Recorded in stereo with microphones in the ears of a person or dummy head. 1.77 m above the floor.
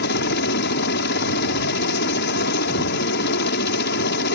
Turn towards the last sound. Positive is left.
turn(degrees=60)  # may be behind; listen again after turning